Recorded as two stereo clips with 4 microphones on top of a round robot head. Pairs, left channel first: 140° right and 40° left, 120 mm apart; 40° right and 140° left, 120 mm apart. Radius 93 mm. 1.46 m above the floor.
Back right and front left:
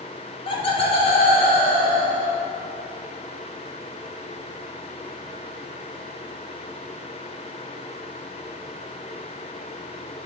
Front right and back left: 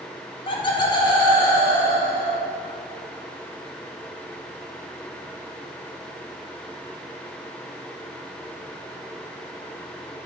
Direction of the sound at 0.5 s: 90° right.